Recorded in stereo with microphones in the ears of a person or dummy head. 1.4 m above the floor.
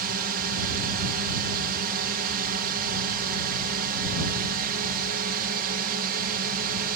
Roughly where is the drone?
Right.